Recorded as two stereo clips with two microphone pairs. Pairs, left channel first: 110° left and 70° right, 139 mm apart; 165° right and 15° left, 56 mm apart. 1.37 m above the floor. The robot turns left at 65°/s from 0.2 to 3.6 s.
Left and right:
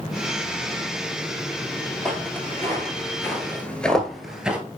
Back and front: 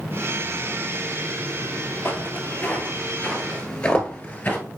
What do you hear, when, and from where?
2.0 s footsteps: 165° right, 1.7 m; by 4.6 s 140° right, 1.5 m